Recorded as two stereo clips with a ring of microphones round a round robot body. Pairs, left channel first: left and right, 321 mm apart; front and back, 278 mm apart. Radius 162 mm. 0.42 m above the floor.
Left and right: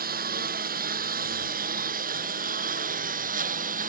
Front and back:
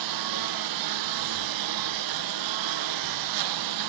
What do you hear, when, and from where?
0.0 s a lawn mower: 155° right